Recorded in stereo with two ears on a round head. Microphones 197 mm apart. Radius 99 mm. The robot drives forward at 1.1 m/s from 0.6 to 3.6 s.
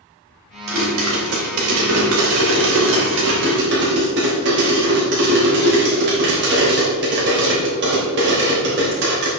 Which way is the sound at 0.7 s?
55° right (ahead or behind).